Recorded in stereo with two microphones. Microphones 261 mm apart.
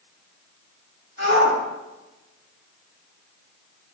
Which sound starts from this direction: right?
A shout, at 1.2 s.